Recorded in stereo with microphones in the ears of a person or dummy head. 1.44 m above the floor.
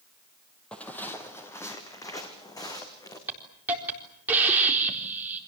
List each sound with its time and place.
0.7 s footsteps: 5° left (ahead or behind), 2 m; by 3.2 s 20° left (ahead or behind), 5 m
3.3 s a hiss: 10° right (ahead or behind), 3.5 m